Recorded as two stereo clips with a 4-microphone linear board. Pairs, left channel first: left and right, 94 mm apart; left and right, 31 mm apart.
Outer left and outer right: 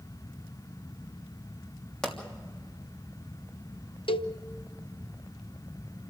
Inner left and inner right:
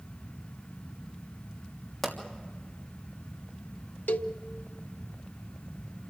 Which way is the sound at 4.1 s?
75° left (ahead or behind).